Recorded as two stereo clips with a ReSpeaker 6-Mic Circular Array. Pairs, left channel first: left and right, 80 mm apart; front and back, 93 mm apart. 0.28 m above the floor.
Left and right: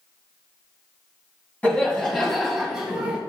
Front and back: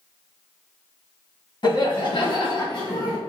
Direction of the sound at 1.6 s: 20° left.